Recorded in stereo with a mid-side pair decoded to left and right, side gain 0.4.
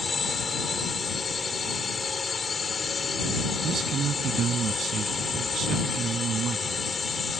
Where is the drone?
40° left.